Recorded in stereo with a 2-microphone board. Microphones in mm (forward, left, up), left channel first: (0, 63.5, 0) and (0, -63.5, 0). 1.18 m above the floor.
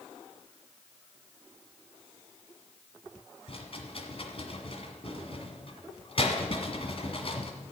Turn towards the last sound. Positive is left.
turn(degrees=50)  # may be behind; listen again after turning